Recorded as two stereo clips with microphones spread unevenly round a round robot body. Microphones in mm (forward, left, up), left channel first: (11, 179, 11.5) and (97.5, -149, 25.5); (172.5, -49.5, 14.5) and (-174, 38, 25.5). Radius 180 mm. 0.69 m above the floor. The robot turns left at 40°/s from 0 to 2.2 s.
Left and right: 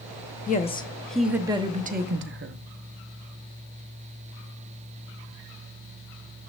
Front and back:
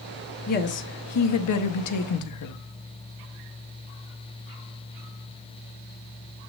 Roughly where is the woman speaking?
Ahead left.